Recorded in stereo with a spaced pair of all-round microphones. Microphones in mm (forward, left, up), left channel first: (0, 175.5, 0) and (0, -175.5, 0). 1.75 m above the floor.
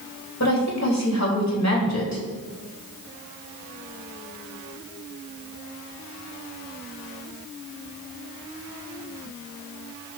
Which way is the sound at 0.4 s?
50° left (ahead or behind).